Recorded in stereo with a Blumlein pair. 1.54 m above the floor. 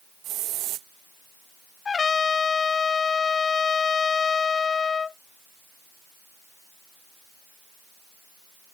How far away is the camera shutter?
I don't hear a camera shutter.